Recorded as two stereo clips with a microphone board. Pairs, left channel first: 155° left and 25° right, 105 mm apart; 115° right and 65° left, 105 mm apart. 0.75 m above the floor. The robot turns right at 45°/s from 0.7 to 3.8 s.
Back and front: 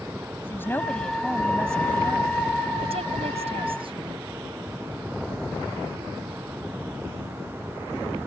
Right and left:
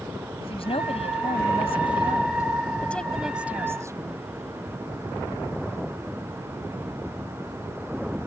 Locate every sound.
0.4 s a woman speaking: 135° right; by 4.3 s 5° left